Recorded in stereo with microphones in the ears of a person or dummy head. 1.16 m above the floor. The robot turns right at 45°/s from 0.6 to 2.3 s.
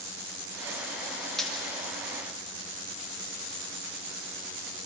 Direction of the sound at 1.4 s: 5° left (ahead or behind).